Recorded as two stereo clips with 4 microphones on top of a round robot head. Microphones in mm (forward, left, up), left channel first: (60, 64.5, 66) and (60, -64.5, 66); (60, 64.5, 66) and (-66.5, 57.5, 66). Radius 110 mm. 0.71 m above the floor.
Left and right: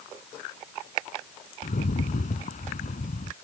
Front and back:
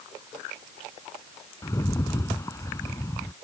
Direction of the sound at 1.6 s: 70° left.